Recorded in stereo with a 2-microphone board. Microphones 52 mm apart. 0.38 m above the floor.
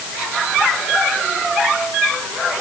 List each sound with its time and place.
Only background noise.